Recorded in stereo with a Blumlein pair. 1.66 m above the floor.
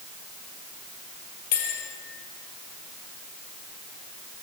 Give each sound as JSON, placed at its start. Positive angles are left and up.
{"t": 1.5, "sound": "a bell", "azimuth_deg": 50, "distance_m": 4.5}